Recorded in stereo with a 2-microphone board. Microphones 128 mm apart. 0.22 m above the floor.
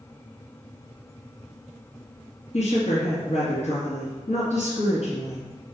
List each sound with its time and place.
2.5 s a woman speaking: 60° left (ahead or behind), 2.5 m